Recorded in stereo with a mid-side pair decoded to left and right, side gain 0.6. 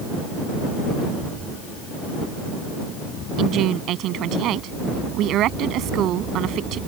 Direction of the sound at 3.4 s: 60° right.